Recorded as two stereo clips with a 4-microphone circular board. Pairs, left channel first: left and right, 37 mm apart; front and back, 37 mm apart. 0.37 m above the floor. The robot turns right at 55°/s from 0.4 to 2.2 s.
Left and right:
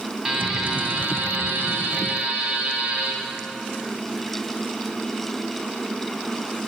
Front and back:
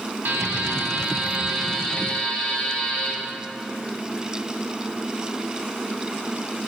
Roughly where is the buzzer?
Behind.